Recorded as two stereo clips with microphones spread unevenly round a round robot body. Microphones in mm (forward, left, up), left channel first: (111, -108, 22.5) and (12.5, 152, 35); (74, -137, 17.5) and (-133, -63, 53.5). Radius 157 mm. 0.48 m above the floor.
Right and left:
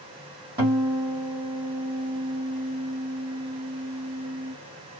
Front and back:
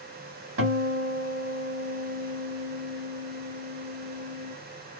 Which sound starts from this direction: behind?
A guitar, at 0.6 s.